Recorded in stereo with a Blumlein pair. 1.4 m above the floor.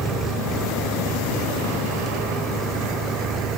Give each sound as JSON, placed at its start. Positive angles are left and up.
{"t": 0.0, "sound": "an engine running", "azimuth_deg": -20}